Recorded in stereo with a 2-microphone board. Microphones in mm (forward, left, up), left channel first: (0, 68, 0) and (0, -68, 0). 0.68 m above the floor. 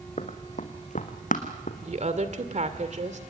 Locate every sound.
0.2 s running footsteps: 55° left (ahead or behind), 2.5 m; by 1.7 s 75° left (ahead or behind), 2.5 m
1.8 s a woman speaking: 60° right (ahead or behind), 2 m